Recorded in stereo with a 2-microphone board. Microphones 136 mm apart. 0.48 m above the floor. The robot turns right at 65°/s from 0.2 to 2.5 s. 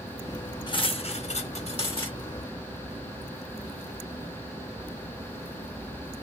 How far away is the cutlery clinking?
About 0.7 m.